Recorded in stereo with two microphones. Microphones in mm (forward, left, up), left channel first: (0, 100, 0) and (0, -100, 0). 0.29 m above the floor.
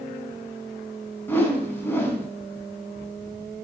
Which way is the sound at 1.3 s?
10° left (ahead or behind).